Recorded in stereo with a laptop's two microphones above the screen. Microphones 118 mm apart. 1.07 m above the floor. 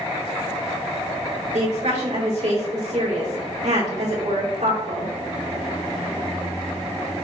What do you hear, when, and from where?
1.5 s a woman speaking: 75° right (ahead or behind), 3.5 m